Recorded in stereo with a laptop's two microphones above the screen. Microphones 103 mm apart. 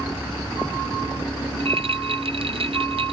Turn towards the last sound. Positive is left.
turn(degrees=-70)  # may be behind; listen again after turning